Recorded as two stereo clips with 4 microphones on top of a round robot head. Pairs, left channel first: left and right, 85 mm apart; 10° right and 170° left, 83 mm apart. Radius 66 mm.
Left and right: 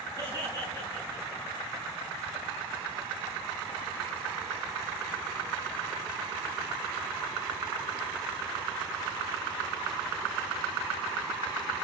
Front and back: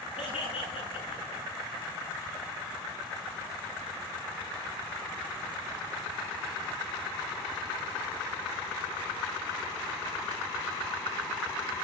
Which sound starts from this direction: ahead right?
Laughter, at 0.2 s.